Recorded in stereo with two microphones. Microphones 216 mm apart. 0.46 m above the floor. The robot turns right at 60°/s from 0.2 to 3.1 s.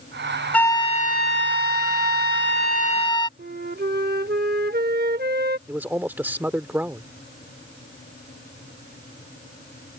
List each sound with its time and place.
0.5 s a flute: 5° left; by 3.3 s 160° left
3.4 s a flute: 45° right (ahead or behind)
5.7 s a man speaking: 10° right (ahead or behind)